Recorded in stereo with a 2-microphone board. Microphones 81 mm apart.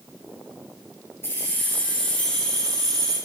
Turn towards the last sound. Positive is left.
turn(degrees=10)  # may be behind; listen again after turning